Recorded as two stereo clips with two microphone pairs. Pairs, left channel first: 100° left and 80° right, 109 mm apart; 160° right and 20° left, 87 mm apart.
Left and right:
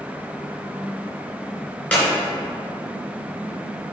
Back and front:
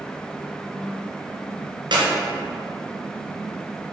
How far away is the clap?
About 2.5 m.